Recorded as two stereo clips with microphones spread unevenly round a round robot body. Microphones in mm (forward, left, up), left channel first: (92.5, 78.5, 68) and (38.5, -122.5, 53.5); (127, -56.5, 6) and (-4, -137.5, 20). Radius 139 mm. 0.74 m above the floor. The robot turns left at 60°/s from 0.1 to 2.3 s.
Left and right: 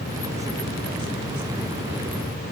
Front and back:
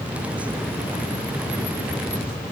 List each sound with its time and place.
Only background noise.